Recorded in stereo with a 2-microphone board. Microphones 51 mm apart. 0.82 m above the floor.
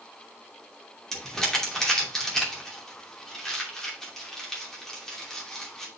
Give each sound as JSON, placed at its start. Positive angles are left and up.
{"t": 1.1, "sound": "crumpling", "side_deg": 10, "distance_m": 2.5}